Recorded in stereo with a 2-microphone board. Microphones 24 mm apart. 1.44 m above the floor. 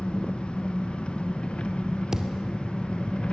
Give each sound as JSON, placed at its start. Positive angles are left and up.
{"t": 0.0, "sound": "an engine running", "side_deg": 45, "distance_m": 1.3}
{"t": 2.1, "sound": "a thud", "side_deg": -25, "distance_m": 2.0}